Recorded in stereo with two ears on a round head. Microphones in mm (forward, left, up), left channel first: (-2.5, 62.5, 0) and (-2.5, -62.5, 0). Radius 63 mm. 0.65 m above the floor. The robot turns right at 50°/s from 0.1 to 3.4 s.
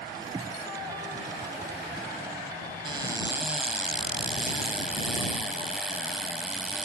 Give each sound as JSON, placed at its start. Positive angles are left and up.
{"t": 2.9, "sound": "a cupboard door", "side_deg": -40}